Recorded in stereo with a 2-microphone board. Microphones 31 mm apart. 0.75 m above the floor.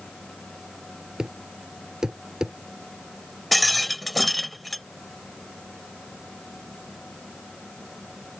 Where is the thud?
20° right (ahead or behind).